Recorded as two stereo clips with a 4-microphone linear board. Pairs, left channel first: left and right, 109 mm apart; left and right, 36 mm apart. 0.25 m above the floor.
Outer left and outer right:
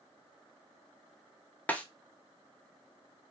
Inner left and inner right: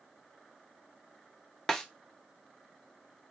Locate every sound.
1.7 s a snare drum: 15° left (ahead or behind), 0.5 m